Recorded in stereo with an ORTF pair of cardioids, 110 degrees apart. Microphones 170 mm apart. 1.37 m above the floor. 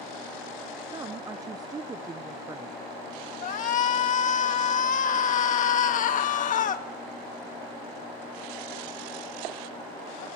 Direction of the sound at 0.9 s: 25° right.